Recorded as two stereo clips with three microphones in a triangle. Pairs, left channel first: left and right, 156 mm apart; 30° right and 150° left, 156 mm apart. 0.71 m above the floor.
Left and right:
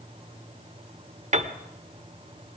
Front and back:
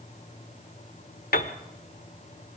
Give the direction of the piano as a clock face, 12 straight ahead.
2 o'clock.